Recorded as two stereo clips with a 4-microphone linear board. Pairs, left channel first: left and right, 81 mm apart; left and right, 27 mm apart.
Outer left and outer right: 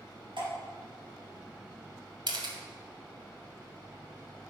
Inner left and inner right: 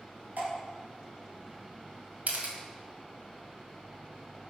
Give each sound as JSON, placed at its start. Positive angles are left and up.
{"t": 0.4, "sound": "dripping", "side_deg": -85, "distance_m": 4.5}
{"t": 2.3, "sound": "a camera shutter", "side_deg": -70, "distance_m": 1.9}